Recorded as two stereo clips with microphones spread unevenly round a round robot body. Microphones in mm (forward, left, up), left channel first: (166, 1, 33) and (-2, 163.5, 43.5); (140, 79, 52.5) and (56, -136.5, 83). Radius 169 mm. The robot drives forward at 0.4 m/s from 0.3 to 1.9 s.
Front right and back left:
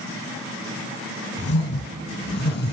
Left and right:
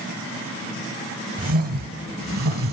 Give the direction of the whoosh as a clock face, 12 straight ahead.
3 o'clock.